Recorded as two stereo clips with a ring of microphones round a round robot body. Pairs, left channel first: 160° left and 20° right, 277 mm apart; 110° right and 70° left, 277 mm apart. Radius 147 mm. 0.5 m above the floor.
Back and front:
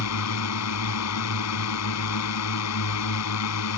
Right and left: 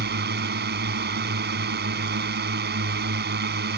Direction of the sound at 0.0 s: 125° left.